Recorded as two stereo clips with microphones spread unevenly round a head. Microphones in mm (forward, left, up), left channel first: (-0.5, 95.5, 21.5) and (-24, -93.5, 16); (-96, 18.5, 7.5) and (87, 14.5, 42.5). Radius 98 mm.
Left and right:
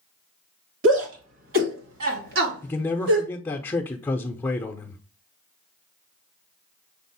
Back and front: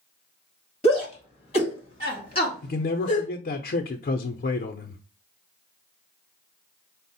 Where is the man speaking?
160° left, 0.6 m.